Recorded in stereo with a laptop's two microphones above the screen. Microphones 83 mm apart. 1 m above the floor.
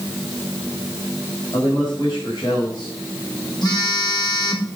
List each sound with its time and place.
1.5 s a man speaking: 55° left (ahead or behind), 5 m
3.6 s a phone buzzing: 60° left (ahead or behind), 4 m